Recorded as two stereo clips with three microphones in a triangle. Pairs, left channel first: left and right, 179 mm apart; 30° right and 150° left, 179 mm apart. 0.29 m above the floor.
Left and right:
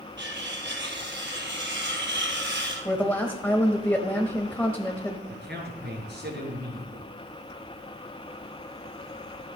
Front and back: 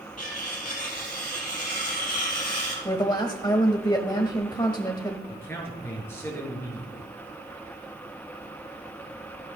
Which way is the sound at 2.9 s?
15° left.